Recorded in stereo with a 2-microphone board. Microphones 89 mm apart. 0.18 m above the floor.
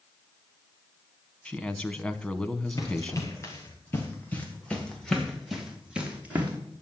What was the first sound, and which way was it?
A man speaking, 10° left (ahead or behind).